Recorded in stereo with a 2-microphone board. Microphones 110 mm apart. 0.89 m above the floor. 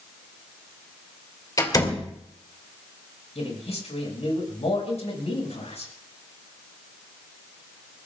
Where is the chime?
No chime in this recording.